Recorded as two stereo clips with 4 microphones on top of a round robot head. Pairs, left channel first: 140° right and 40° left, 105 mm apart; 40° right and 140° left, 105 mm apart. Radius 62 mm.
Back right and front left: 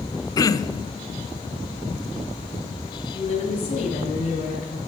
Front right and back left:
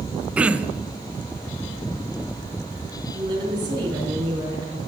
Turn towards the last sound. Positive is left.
turn(degrees=-170)